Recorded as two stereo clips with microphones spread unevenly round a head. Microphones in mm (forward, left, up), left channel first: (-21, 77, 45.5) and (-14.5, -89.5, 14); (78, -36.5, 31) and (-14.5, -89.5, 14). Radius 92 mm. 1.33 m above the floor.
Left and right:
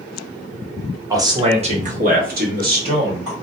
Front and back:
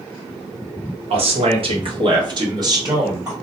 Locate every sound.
1.1 s a man speaking: 155° right, 0.9 m; by 3.3 s 95° right, 1.9 m